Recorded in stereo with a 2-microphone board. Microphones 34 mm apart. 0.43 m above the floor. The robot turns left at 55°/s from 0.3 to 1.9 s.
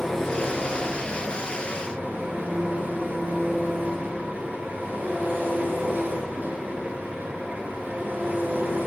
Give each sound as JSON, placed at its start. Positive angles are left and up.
{"t": 0.0, "sound": "an engine running", "azimuth_deg": 10, "distance_m": 2.5}